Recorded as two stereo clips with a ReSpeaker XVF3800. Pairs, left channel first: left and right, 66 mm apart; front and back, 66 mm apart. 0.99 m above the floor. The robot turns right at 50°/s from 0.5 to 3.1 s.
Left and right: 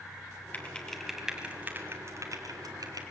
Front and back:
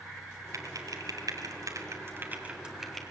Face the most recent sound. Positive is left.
turn(degrees=-80)